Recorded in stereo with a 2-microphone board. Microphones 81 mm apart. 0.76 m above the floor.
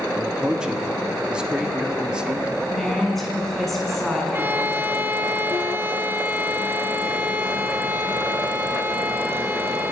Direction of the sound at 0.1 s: 10° right (ahead or behind).